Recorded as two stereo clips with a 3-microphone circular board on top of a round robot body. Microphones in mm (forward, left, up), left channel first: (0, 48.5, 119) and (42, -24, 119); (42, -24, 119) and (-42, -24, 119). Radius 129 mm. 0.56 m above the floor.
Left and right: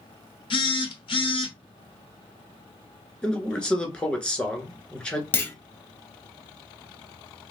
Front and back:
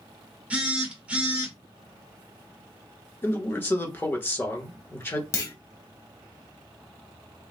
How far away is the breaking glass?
I don't hear breaking glass.